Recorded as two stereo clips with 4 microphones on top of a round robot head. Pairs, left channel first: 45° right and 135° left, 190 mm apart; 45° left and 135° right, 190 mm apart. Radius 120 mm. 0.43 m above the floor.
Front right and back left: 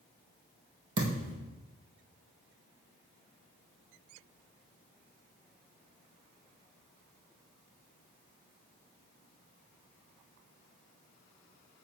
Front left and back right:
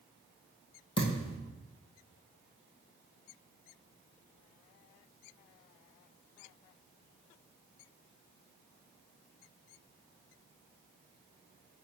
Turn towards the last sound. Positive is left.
turn(degrees=110)